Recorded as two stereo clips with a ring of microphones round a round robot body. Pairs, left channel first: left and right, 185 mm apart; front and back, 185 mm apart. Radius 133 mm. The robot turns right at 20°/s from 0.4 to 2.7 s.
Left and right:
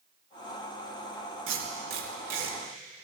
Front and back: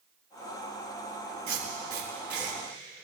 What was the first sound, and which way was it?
Tape being pulled, 115° right.